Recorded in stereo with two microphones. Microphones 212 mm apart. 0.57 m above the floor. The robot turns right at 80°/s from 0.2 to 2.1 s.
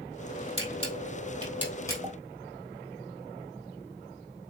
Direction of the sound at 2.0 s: 10° right (ahead or behind).